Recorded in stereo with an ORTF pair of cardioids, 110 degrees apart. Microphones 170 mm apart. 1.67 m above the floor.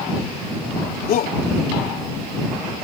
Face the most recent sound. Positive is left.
turn(degrees=60)